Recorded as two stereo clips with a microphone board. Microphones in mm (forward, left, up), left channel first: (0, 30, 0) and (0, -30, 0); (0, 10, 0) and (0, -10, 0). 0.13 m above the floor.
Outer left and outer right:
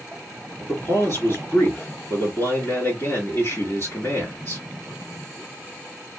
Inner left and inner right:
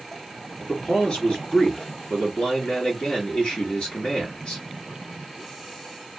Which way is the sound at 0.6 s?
45° left (ahead or behind).